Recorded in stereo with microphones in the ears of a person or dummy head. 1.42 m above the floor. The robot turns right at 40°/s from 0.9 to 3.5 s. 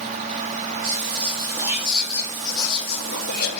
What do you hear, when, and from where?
0.8 s whispering: 40° right, 3 m; by 3.6 s 65° left, 3 m